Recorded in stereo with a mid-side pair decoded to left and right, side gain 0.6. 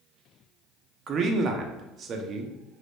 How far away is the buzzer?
I don't hear a buzzer.